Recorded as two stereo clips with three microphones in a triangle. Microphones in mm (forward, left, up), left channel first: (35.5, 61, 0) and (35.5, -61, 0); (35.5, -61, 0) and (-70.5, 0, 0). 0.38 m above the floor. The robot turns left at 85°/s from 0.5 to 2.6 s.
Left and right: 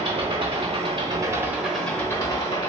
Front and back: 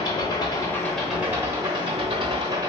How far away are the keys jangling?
No keys jangling in this recording.